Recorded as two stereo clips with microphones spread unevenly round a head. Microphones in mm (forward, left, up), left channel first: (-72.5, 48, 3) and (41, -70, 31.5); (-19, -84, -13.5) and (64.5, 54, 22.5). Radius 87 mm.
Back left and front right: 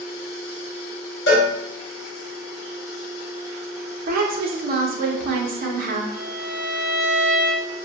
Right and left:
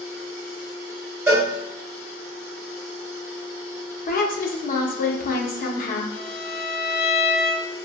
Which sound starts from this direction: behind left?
A cowbell, at 1.3 s.